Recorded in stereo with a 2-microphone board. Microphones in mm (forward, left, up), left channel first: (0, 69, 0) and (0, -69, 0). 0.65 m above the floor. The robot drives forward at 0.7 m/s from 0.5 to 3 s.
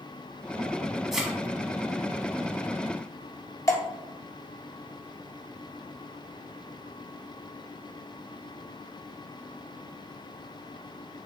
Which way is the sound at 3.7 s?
25° left (ahead or behind).